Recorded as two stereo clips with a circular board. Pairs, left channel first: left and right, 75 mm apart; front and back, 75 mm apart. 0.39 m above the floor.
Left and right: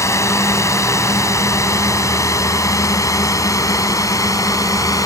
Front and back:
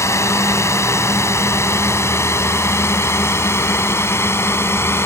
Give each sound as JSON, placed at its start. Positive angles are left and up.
{"t": 0.0, "sound": "a drone", "azimuth_deg": 45}